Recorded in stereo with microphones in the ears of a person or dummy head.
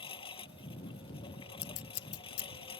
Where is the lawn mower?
25° left (ahead or behind).